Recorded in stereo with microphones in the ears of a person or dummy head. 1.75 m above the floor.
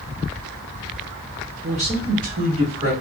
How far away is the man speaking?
About 0.6 m.